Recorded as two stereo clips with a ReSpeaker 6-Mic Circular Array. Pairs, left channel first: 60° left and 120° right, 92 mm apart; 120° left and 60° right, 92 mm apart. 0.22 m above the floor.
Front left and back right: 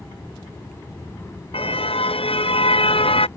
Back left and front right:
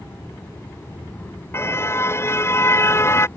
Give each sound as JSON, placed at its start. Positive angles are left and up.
{"t": 1.5, "sound": "a car horn", "azimuth_deg": 55}